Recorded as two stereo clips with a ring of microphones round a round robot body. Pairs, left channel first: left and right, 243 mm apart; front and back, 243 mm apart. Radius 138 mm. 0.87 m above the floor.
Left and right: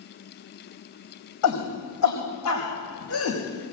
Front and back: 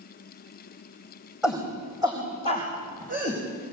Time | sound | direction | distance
1.4 | a shout | 95° left | 4 m